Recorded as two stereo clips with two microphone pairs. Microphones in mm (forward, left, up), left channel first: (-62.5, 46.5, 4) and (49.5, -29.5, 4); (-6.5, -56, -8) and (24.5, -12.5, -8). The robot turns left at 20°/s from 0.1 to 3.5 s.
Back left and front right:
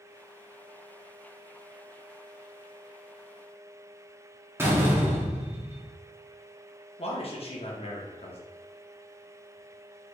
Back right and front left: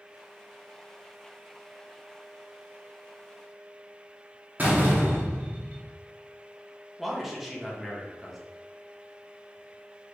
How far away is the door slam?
About 0.7 m.